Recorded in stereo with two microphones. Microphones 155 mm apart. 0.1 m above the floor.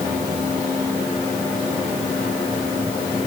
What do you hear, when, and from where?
Only background noise.